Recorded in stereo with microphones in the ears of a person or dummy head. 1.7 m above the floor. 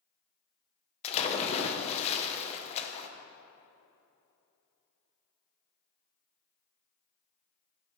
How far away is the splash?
About 0.7 m.